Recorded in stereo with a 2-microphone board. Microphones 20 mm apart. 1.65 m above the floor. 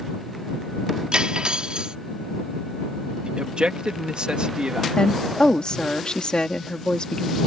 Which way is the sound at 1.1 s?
55° right (ahead or behind).